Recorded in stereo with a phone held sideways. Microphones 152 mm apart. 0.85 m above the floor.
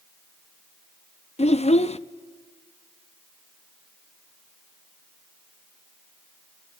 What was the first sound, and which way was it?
A child speaking, 45° left (ahead or behind).